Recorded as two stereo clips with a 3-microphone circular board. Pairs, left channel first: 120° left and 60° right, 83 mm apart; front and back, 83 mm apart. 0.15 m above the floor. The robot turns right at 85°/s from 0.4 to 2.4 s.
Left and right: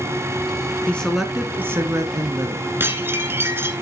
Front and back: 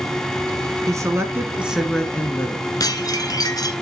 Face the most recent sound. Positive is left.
turn(degrees=-5)